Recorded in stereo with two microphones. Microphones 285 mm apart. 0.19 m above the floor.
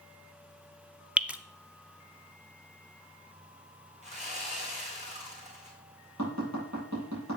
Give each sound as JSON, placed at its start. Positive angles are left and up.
{"t": 1.2, "sound": "dripping", "side_deg": -5, "distance_m": 0.7}
{"t": 4.0, "sound": "sawing", "side_deg": -20, "distance_m": 3.0}
{"t": 6.2, "sound": "tapping", "side_deg": -65, "distance_m": 7.0}